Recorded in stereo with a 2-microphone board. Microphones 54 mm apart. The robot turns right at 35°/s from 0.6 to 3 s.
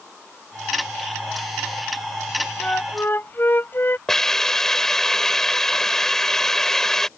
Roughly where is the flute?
Left.